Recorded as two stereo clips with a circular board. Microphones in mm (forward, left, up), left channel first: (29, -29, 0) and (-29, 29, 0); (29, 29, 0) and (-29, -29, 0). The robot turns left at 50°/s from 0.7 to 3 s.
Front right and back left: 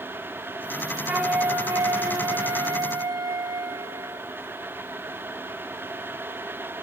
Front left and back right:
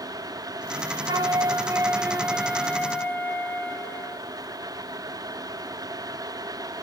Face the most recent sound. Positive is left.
turn(degrees=110)